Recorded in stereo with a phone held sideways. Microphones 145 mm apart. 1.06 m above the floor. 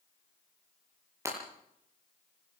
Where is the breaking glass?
20° right (ahead or behind), 8 m.